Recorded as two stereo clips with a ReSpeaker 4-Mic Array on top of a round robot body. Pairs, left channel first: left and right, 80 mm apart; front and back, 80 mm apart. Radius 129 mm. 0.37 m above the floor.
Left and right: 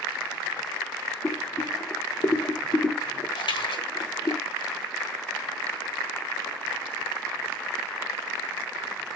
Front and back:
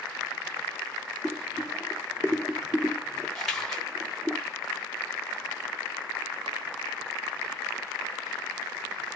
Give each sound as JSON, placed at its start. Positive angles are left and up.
{"t": 1.2, "sound": "boiling", "azimuth_deg": 100, "distance_m": 1.2}
{"t": 3.4, "sound": "a splash", "azimuth_deg": 85, "distance_m": 3.5}